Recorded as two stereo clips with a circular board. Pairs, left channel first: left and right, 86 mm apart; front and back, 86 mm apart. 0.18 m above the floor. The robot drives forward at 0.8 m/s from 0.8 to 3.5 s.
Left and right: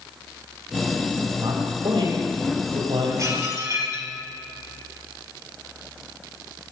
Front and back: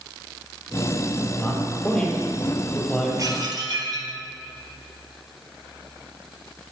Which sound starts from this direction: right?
A man speaking, at 1.4 s.